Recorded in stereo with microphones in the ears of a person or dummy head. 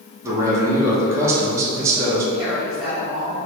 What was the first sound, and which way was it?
A man speaking, 20° right (ahead or behind).